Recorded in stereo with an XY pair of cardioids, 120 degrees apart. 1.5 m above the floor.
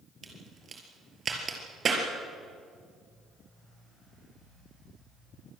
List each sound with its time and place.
0.2 s a crack: 35° right, 5 m